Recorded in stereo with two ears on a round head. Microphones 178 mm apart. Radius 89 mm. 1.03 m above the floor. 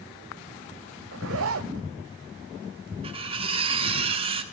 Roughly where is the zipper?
Right.